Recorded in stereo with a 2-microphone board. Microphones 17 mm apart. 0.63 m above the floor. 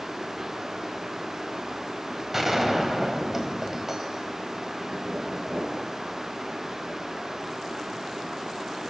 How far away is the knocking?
About 8 m.